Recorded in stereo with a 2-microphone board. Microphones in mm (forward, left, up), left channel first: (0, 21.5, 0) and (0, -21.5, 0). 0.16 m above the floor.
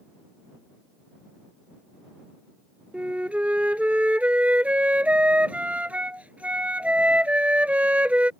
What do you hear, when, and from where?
2.9 s a flute: 35° right (ahead or behind)